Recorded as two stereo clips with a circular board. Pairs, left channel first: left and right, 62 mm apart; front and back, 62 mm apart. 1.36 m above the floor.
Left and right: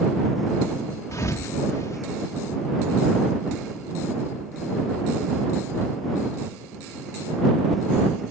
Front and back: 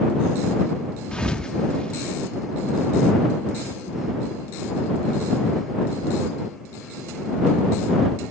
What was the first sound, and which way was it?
A thud, 75° left.